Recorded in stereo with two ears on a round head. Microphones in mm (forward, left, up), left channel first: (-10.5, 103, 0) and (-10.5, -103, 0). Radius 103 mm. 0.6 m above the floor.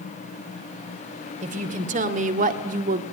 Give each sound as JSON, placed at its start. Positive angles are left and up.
{"t": 1.4, "sound": "a woman speaking", "side_deg": -35, "distance_m": 3.0}